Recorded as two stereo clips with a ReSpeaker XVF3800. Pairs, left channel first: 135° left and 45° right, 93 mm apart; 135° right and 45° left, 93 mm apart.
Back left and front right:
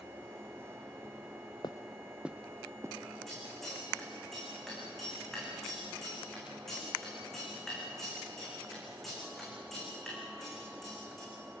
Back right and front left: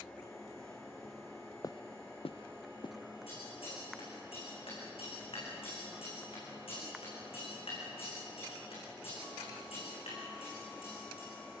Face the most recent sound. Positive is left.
turn(degrees=-140)